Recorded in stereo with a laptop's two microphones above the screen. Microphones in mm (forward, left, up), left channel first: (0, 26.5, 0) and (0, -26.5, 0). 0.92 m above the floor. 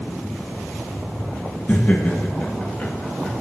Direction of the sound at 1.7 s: 30° left (ahead or behind).